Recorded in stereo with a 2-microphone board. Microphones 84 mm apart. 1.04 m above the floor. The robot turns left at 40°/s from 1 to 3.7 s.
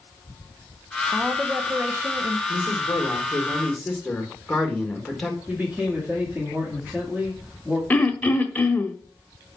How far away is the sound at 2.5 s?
About 1.6 m.